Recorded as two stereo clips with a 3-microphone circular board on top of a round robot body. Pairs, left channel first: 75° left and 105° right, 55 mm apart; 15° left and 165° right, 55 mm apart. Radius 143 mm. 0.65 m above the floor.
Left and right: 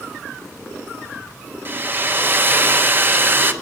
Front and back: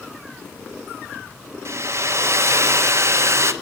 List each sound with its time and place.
1.6 s a hair dryer: 150° right, 1.2 m